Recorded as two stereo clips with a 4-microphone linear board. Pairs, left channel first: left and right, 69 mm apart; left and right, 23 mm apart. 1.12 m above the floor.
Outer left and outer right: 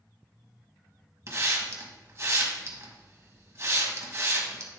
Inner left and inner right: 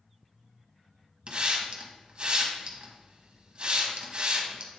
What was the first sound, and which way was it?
A hiss, 45° right (ahead or behind).